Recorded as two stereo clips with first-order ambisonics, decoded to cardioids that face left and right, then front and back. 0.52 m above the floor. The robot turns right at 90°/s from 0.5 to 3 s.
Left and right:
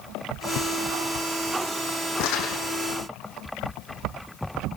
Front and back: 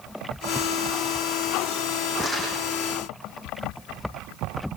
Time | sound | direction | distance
2.2 | crumpling | 90° left | 6.5 m